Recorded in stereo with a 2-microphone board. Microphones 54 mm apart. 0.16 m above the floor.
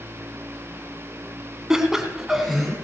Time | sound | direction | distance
1.7 | laughter | 10° right (ahead or behind) | 1.4 m